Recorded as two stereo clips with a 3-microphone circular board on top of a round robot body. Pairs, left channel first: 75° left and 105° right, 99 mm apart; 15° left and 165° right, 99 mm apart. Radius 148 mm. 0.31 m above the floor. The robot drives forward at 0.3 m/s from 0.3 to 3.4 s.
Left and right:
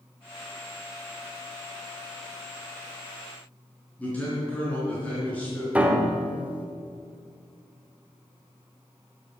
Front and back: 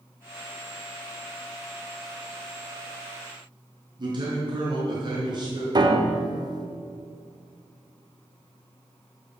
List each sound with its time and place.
4.0 s a man speaking: 150° left, 4.5 m
5.8 s a piano: 175° right, 1.7 m